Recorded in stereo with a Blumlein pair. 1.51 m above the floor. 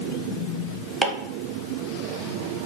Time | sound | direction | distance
1.0 | chopping | 15° right | 0.6 m